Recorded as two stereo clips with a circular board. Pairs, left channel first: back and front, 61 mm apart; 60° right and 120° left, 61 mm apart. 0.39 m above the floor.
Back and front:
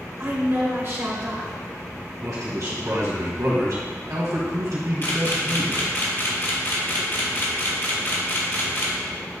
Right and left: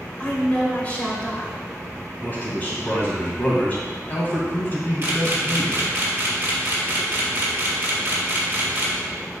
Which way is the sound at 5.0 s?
155° left.